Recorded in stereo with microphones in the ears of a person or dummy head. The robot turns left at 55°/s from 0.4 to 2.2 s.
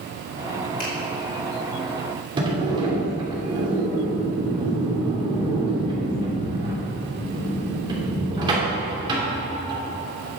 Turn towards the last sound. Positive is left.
turn(degrees=-25)  # may be behind; listen again after turning